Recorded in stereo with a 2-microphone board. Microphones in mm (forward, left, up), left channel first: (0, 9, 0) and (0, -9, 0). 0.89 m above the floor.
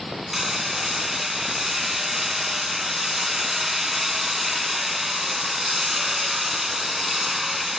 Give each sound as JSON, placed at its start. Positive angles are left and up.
{"t": 0.3, "sound": "hammering", "side_deg": -15, "distance_m": 2.0}